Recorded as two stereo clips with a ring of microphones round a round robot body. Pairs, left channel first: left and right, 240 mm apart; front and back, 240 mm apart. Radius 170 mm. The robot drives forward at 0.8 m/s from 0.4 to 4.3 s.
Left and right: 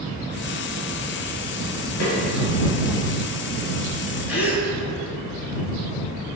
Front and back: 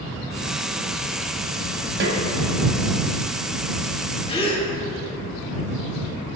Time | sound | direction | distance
2.0 | a snare drum | 140° left | 1.8 m
4.3 | a gasp | 65° left | 2 m